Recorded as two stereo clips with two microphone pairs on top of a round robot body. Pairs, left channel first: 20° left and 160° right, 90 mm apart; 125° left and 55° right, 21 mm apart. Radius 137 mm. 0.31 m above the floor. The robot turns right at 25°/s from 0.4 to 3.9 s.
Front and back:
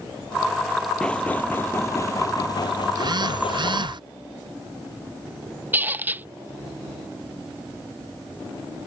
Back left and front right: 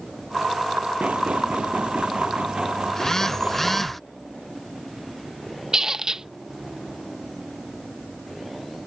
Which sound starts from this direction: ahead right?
Knocking, at 1.0 s.